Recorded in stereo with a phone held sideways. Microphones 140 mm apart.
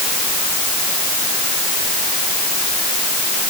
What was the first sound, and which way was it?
Only background noise.